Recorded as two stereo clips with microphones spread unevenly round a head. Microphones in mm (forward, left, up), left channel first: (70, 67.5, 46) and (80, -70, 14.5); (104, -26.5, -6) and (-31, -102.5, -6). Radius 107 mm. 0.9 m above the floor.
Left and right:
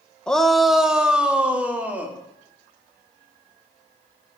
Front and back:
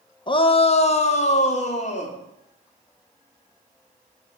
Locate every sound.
0.3 s a shout: 5° right, 0.9 m; by 2.2 s 10° right, 2.5 m